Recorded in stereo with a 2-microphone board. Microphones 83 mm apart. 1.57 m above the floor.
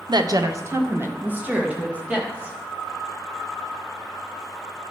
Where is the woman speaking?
60° right (ahead or behind), 0.7 m; by 2.5 s 10° right (ahead or behind), 2.5 m.